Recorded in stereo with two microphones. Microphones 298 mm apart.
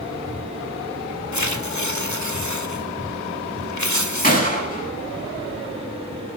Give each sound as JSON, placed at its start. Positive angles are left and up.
{"t": 1.3, "sound": "tearing paper", "side_deg": 70, "distance_m": 1.8}
{"t": 4.2, "sound": "a gunshot", "side_deg": 30, "distance_m": 7.5}